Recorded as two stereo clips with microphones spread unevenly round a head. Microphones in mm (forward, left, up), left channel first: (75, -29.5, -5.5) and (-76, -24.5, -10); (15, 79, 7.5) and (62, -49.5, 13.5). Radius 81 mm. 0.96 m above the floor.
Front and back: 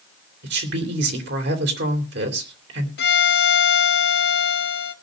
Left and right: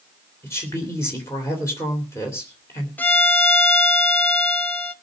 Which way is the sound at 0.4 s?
175° right.